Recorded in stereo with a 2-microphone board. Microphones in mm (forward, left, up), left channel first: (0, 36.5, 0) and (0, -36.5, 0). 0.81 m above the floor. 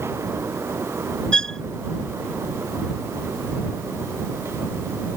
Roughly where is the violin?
Centre.